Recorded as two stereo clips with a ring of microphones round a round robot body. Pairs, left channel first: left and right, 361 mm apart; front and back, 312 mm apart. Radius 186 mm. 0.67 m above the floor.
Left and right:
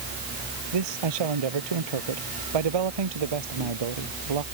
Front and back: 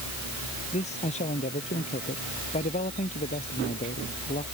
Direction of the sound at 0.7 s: 75° right.